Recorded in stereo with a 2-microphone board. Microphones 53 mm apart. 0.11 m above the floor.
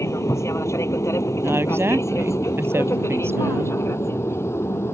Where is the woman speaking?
50° right (ahead or behind).